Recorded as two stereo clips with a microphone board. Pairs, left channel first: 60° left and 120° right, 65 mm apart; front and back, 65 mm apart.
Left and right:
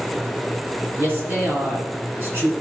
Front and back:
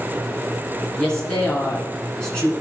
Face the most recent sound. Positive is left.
turn(degrees=-70)